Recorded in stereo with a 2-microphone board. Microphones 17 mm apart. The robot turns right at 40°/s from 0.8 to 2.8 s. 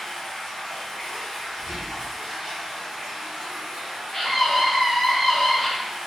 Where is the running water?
155° left, 1.8 m; by 6.1 s 125° right, 1.8 m.